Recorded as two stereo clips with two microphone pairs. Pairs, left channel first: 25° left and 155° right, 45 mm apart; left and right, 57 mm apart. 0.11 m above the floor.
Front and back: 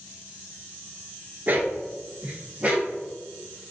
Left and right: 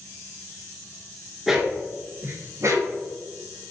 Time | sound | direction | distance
1.5 | a dog barking | 170° right | 0.6 m